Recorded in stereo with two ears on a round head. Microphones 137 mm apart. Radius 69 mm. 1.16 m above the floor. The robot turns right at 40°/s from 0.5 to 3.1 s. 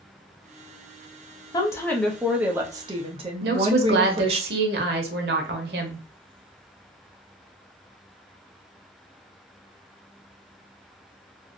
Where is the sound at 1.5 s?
155° left, 0.6 m; by 4.4 s 145° right, 0.6 m.